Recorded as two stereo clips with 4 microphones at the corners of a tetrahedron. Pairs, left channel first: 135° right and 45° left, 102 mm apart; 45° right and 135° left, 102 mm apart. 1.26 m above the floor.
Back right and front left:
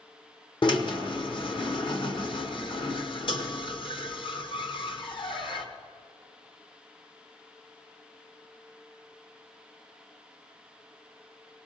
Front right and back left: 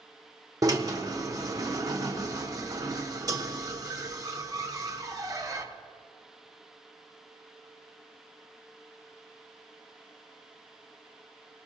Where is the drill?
175° right, 1.1 m.